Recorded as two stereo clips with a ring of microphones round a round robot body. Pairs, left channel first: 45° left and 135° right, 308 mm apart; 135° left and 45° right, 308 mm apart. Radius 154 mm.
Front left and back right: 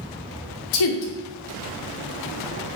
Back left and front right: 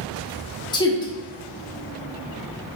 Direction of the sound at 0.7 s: 60° left.